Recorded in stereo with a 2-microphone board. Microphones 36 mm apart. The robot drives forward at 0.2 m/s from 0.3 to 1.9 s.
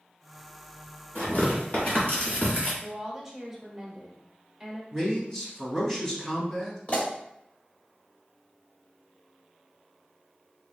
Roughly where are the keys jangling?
I don't hear keys jangling.